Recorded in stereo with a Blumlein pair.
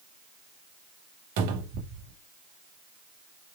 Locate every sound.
1.4 s a cupboard door: 45° right, 0.7 m